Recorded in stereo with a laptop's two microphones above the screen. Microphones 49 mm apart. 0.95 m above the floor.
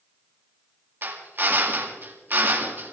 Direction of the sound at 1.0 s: 45° right (ahead or behind).